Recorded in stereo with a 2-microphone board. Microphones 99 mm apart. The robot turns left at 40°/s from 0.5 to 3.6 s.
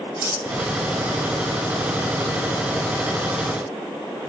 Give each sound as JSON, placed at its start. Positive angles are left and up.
{"t": 0.2, "sound": "cutlery clinking", "side_deg": -15, "distance_m": 3.5}